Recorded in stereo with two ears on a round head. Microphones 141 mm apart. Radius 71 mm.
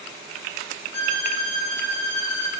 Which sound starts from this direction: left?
A violin, at 0.9 s.